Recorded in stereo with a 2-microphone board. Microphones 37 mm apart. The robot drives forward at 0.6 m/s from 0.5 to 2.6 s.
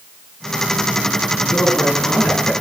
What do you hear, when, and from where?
1.5 s a man speaking: 70° left (ahead or behind), 9 m; by 2.5 s 75° left (ahead or behind), 9 m